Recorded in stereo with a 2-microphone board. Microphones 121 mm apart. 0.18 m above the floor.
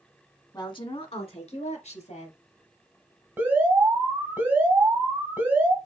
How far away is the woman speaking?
About 1.2 m.